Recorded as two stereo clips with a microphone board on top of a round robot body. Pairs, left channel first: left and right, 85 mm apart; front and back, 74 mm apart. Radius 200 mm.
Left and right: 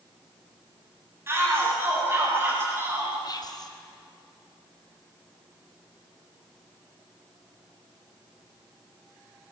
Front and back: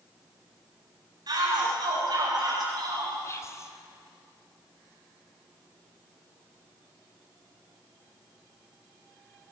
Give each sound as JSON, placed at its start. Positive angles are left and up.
{"t": 1.3, "sound": "a shout", "azimuth_deg": -150, "distance_m": 7.0}
{"t": 3.2, "sound": "whispering", "azimuth_deg": 50, "distance_m": 3.0}